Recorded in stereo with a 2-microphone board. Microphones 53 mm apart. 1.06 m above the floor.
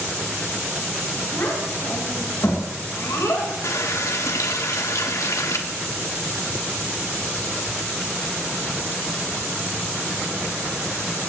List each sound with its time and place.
1.3 s a child speaking: 55° left (ahead or behind), 4.5 m; by 3.5 s 80° left, 3.5 m
3.6 s a running tap: 75° left (ahead or behind), 1.2 m